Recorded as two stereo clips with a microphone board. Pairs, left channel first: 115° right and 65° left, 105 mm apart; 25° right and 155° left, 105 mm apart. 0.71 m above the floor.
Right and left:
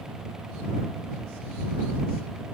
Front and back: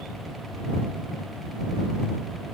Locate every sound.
Only background noise.